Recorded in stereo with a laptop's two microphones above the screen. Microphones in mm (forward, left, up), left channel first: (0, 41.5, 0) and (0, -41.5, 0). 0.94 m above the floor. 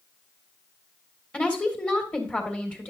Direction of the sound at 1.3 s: 15° left (ahead or behind).